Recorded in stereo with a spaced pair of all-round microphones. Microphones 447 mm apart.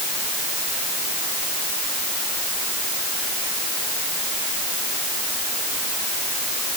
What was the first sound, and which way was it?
Only background noise.